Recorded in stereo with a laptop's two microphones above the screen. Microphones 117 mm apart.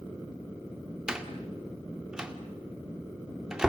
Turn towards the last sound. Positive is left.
turn(degrees=-5)  # may be behind; listen again after turning